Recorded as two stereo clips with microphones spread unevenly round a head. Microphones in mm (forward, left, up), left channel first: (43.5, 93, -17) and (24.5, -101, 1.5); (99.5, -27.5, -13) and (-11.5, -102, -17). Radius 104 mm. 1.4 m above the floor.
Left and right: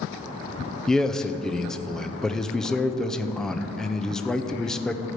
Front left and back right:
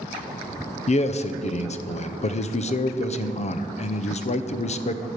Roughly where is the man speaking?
Ahead.